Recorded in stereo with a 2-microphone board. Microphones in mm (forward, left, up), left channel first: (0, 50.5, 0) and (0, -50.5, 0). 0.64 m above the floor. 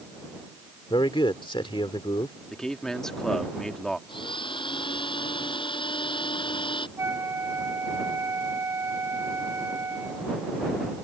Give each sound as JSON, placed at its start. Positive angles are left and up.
{"t": 0.9, "sound": "a man speaking", "side_deg": 55}
{"t": 2.5, "sound": "a man speaking", "side_deg": 5}
{"t": 4.1, "sound": "a blender", "side_deg": 55}
{"t": 7.0, "sound": "a flute", "side_deg": -30}